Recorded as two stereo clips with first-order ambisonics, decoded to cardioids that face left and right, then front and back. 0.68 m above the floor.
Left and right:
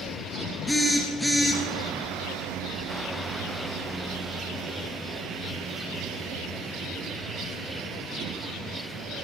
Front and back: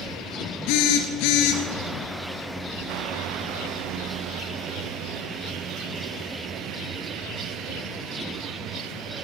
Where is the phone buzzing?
Straight ahead, 1.8 m.